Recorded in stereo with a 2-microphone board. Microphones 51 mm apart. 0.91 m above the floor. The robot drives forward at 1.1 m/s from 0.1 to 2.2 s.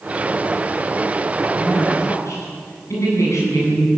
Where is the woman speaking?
75° left (ahead or behind), 9.5 m.